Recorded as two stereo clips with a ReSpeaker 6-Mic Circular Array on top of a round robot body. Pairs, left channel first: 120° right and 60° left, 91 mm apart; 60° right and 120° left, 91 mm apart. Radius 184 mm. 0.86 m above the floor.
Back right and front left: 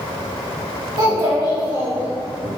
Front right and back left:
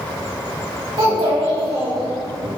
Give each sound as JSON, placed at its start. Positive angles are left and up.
{"t": 1.0, "sound": "a child speaking", "azimuth_deg": 100, "distance_m": 2.5}